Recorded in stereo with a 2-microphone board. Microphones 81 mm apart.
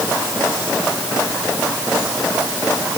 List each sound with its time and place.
Only background noise.